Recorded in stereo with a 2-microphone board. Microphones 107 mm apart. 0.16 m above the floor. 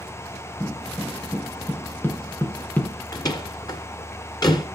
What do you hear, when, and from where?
0.6 s footsteps: 25° left (ahead or behind), 4 m; by 3.0 s 15° left (ahead or behind), 2.5 m
3.1 s a door slam: 40° left (ahead or behind), 1.8 m